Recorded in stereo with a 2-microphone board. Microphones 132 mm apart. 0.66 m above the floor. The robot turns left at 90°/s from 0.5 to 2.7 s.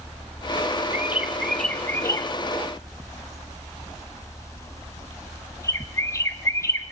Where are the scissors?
I don't hear scissors.